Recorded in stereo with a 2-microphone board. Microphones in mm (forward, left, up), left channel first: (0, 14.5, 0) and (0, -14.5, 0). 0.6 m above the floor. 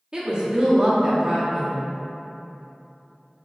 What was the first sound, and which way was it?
A woman speaking, 30° right (ahead or behind).